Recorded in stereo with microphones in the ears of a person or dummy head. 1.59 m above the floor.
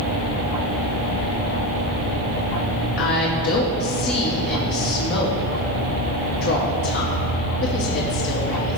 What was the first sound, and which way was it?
A woman speaking, 60° left (ahead or behind).